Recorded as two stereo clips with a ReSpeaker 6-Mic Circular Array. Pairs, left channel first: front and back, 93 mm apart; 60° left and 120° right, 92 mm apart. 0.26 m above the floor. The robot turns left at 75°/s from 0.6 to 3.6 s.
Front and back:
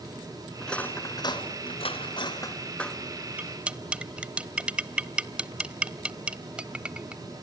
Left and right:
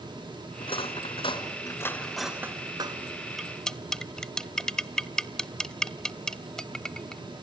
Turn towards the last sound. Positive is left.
turn(degrees=130)